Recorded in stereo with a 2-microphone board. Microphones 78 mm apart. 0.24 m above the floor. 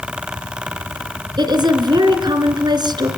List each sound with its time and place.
1.4 s a woman speaking: 65° right (ahead or behind), 2.5 m